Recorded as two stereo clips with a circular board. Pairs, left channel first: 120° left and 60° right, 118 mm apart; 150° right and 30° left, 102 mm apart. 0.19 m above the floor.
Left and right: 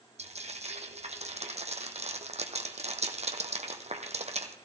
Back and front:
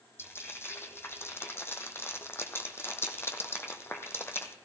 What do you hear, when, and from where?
0.2 s frying: 85° right, 1.2 m